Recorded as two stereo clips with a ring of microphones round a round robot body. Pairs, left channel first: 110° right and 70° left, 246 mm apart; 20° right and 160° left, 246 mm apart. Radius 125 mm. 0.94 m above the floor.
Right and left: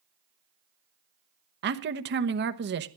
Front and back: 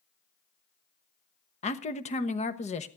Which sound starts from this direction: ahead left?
A man speaking, at 1.6 s.